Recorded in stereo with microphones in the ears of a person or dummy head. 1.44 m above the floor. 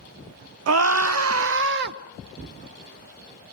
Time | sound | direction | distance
0.7 | a scream | 75° right (ahead or behind) | 1.1 m